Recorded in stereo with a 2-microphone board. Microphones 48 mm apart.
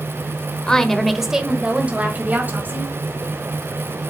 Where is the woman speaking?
15° left (ahead or behind), 1.1 m; by 3.0 s 50° right (ahead or behind), 1.9 m.